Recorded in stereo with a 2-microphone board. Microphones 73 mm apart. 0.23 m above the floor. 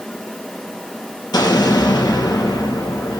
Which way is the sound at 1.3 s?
70° left (ahead or behind).